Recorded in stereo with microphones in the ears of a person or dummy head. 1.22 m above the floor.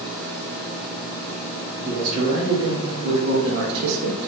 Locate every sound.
1.8 s a man speaking: 30° right (ahead or behind), 1.7 m; by 4.2 s 80° right, 0.7 m